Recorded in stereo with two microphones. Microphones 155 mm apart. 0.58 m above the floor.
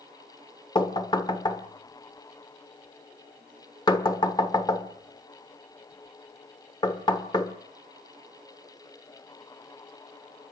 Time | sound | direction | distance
0.8 | knocking | 30° left (ahead or behind) | 1.5 m